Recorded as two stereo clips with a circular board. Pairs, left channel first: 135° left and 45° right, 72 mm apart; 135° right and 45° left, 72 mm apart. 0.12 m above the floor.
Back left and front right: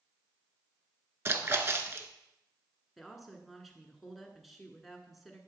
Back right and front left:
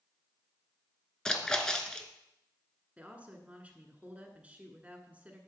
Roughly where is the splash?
Ahead right.